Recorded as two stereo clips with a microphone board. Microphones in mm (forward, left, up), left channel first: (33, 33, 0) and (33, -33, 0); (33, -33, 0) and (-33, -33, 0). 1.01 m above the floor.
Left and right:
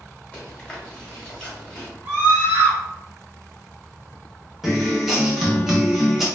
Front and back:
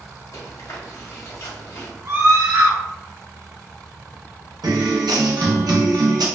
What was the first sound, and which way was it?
Chewing, 20° left.